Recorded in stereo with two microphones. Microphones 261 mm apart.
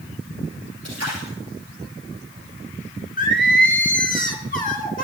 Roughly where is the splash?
Right.